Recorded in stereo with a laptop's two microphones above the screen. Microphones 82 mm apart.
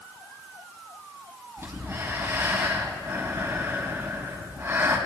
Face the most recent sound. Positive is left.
turn(degrees=-35)  # may be behind; listen again after turning